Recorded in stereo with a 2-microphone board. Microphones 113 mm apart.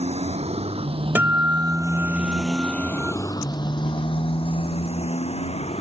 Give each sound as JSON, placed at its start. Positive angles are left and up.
{"t": 0.0, "sound": "a motorcycle", "side_deg": -70}
{"t": 1.1, "sound": "a guitar", "side_deg": -15}